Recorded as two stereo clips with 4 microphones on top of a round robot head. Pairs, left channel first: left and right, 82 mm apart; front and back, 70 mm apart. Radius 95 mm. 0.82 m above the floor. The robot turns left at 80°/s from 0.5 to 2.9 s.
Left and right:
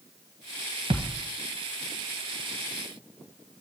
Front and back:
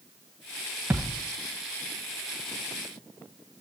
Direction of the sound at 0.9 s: 110° right.